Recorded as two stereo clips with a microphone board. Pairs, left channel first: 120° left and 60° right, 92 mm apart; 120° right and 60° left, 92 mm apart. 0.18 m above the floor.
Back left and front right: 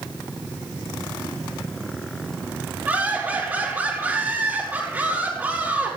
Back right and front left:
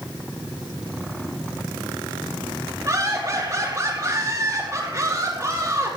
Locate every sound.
2.9 s laughter: 5° left, 3.5 m